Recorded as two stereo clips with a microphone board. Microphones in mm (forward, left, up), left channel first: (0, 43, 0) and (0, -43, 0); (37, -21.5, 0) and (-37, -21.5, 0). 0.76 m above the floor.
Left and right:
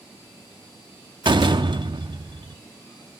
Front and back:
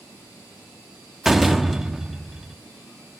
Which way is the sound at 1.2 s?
95° right.